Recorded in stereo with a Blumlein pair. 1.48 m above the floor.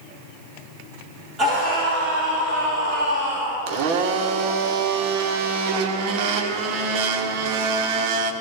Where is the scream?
25° right, 5 m; by 3.6 s 40° right, 5 m.